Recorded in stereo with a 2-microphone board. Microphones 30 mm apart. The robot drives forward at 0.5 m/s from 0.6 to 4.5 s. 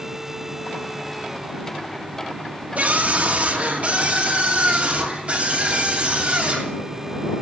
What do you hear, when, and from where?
2.8 s a scream: 60° right (ahead or behind), 2.5 m; by 6.7 s 45° right (ahead or behind), 3 m